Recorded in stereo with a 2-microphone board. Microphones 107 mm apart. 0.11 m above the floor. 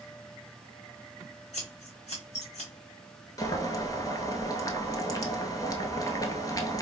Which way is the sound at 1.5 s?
80° left.